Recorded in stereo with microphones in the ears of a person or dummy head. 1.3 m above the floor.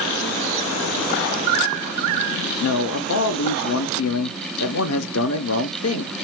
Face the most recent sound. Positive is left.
turn(degrees=75)  # may be behind; listen again after turning